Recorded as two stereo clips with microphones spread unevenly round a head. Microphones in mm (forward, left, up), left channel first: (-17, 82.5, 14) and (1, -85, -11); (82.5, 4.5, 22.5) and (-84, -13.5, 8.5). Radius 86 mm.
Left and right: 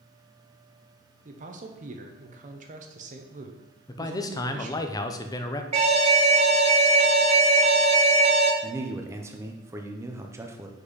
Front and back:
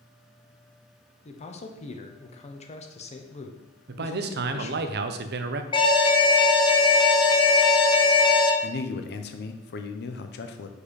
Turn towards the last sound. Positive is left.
turn(degrees=-15)